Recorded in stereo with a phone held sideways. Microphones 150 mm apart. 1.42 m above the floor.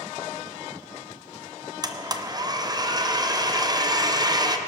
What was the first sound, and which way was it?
A blender, 30° right (ahead or behind).